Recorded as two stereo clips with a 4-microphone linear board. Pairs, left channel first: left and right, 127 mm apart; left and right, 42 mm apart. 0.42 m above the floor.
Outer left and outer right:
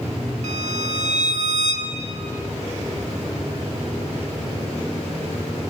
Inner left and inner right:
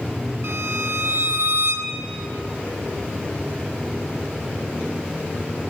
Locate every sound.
0.4 s a violin: 65° right (ahead or behind), 1.4 m